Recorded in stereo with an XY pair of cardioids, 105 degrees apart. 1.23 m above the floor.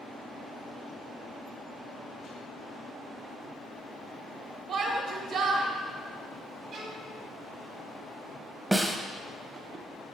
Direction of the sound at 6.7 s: 65° right.